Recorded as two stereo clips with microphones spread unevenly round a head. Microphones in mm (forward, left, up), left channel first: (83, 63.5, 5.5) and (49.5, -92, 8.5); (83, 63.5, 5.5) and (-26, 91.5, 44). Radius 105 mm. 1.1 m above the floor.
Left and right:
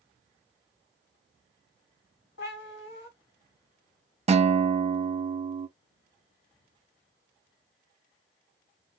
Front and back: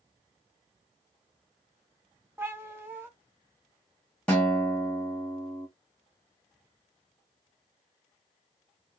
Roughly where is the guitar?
Right.